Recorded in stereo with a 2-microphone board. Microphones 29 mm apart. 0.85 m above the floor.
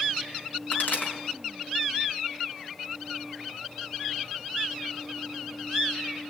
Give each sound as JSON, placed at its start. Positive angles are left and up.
{"t": 0.7, "sound": "a pop", "side_deg": 80, "distance_m": 5.0}